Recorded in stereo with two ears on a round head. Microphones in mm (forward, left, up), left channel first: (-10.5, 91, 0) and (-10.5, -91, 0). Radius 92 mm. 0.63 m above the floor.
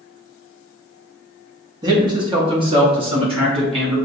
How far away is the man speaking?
About 0.9 m.